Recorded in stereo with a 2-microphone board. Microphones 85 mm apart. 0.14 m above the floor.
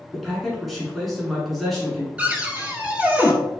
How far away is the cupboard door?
About 0.6 m.